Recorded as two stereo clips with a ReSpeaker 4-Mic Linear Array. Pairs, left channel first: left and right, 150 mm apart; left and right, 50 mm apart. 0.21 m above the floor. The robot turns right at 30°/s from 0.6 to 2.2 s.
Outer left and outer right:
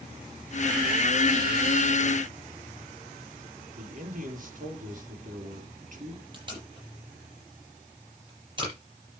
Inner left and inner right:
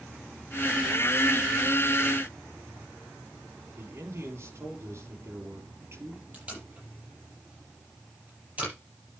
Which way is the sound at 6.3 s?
30° right (ahead or behind).